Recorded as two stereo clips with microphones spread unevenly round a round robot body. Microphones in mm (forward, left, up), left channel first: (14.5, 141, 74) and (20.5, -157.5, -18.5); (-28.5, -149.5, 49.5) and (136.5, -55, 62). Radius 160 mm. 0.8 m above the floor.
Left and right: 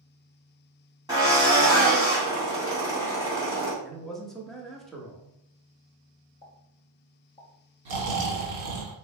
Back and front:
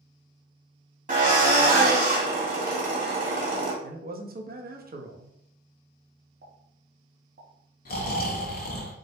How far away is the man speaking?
About 1.0 m.